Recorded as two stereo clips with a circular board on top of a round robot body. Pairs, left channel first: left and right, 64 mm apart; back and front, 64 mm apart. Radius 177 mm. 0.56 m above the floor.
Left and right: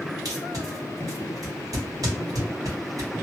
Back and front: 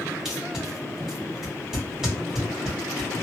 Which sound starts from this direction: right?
Tape being pulled, at 0.2 s.